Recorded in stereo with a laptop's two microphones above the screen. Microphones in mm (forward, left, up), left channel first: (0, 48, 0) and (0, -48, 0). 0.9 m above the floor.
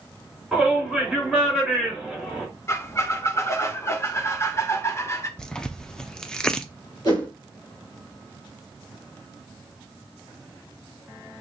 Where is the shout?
Centre (ahead or behind), 3.5 m.